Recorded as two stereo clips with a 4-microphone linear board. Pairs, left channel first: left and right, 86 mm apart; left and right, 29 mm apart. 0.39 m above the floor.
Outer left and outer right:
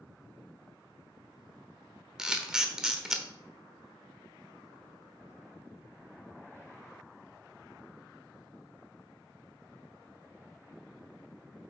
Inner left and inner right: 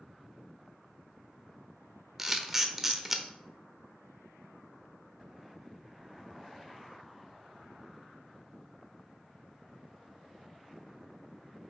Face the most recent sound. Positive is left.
turn(degrees=-10)  # may be behind; listen again after turning